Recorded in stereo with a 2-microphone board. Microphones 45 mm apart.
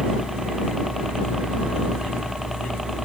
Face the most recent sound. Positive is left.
turn(degrees=-5)  # may be behind; listen again after turning